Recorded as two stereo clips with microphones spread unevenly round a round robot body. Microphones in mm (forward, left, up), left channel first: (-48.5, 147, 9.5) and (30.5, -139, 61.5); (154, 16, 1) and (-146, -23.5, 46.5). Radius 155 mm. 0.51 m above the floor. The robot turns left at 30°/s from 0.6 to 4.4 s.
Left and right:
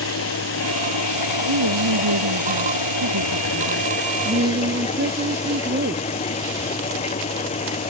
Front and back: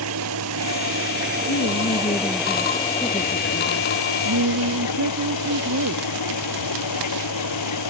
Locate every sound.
0.0 s an engine running: 150° left; by 7.9 s 35° left
1.5 s a woman speaking: 45° right; by 6.0 s 130° right